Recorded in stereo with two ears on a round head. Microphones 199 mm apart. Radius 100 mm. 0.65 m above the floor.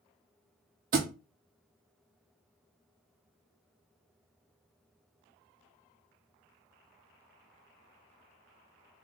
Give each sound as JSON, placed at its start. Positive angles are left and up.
{"t": 0.9, "sound": "a thud", "side_deg": -40, "distance_m": 0.9}